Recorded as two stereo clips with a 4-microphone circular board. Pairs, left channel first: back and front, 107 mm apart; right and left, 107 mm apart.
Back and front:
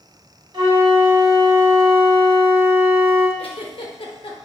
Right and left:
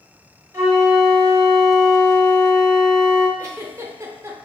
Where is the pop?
No pop in this recording.